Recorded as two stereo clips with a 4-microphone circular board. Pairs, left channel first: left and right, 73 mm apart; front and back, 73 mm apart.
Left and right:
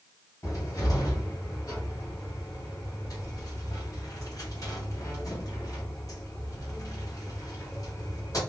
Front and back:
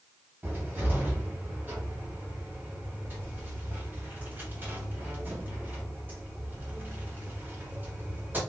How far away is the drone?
I don't hear a drone.